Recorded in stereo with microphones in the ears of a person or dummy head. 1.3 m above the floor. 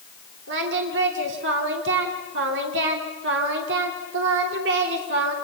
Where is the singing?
60° right (ahead or behind), 2.5 m.